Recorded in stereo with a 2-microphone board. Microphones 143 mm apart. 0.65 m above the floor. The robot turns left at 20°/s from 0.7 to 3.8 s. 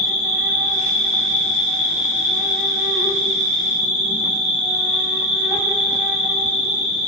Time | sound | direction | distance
0.0 | an insect | 90° right | 1.5 m